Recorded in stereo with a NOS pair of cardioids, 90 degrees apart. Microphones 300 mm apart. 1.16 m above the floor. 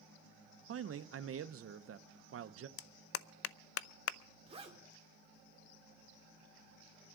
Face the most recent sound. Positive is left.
turn(degrees=-15)